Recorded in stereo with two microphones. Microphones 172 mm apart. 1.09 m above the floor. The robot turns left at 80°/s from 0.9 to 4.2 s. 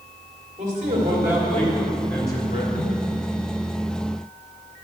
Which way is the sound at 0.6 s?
135° right.